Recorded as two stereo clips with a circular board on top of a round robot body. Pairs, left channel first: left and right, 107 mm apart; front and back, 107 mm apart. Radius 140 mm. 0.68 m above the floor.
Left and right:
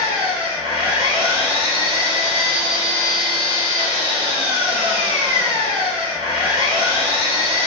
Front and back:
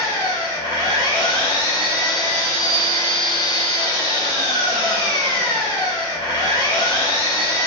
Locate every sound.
0.0 s an engine running: 50° right, 1.2 m